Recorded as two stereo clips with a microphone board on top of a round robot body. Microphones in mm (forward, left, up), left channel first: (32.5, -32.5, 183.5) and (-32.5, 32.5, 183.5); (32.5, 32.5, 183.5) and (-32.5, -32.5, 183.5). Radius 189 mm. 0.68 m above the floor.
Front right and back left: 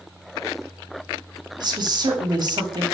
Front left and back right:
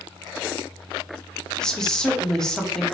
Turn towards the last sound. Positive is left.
turn(degrees=125)